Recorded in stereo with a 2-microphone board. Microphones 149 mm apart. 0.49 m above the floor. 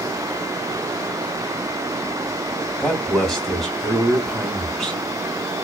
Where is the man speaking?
5° left (ahead or behind), 3.5 m.